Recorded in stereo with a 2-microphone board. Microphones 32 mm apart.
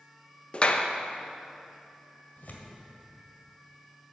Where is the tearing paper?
60° left (ahead or behind), 1.7 m.